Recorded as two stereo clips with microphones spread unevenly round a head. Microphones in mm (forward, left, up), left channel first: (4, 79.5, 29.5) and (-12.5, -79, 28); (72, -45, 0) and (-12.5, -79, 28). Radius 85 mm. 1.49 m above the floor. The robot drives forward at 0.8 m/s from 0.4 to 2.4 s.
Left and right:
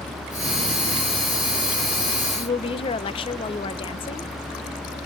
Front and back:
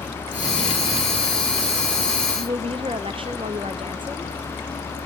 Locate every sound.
2.4 s a woman speaking: 145° left, 1.1 m